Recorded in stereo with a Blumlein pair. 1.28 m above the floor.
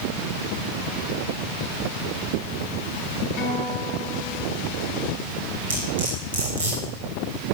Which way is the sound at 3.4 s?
45° left.